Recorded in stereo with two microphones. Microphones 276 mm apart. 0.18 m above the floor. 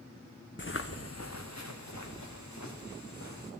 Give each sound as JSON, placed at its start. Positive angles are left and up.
{"t": 0.6, "sound": "footsteps", "side_deg": 45, "distance_m": 0.8}